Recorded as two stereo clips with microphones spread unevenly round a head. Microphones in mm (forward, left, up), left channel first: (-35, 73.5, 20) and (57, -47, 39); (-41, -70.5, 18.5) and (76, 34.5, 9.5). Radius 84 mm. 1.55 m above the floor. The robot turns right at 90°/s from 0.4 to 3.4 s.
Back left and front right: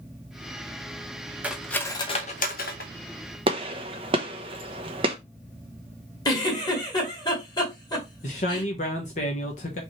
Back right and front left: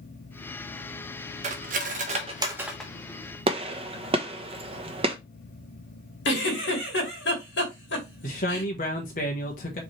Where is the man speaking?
175° left, 1.1 m.